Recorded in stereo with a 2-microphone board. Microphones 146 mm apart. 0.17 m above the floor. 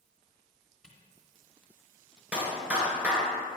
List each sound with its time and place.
0.8 s a camera shutter: 5° right (ahead or behind), 2 m
2.3 s a clap: 10° right (ahead or behind), 2 m